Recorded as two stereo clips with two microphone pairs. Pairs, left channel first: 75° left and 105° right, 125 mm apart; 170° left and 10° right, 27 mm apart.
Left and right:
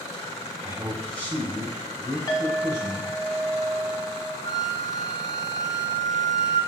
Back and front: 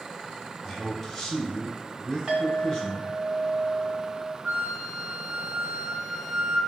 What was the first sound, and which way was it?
A man speaking, 90° right.